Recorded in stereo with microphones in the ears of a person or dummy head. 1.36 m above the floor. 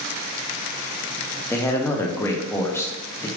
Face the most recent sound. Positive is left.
turn(degrees=15)  # may be behind; listen again after turning